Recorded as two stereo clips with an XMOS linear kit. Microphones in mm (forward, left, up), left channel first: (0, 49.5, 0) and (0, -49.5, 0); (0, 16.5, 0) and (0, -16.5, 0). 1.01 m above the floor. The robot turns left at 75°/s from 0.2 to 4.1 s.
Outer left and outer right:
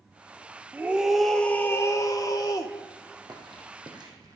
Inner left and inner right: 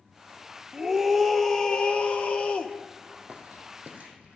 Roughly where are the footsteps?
Right.